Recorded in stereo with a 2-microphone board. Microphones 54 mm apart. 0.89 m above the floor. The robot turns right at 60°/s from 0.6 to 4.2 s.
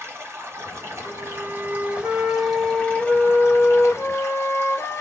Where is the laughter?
I don't hear laughter.